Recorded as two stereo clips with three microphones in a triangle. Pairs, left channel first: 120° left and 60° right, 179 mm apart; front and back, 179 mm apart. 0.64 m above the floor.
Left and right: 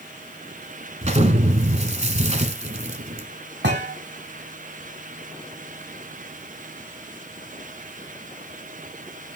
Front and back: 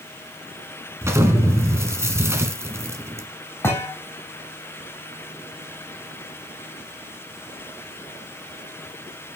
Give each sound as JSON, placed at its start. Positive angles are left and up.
{"t": 1.0, "sound": "an explosion", "azimuth_deg": -105, "distance_m": 1.2}
{"t": 3.6, "sound": "a thud", "azimuth_deg": -75, "distance_m": 1.5}